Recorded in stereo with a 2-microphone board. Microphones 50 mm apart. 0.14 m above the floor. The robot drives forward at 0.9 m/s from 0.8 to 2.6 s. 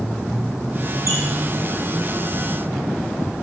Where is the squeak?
70° right (ahead or behind), 2.5 m; by 1.2 s 65° right (ahead or behind), 2.5 m.